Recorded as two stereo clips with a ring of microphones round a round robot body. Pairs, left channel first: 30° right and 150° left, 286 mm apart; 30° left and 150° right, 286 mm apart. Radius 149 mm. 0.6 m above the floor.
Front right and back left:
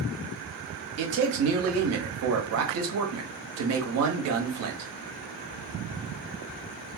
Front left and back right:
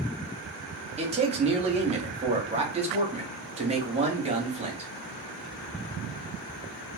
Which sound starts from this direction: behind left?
A man speaking, at 1.0 s.